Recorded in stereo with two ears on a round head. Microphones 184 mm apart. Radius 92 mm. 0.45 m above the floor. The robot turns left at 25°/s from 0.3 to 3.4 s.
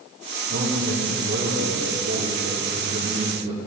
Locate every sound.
0.5 s a man speaking: 80° right, 6 m; by 3.7 s 150° right, 6 m